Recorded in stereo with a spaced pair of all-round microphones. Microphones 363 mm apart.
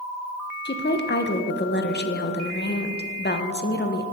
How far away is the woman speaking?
About 0.6 m.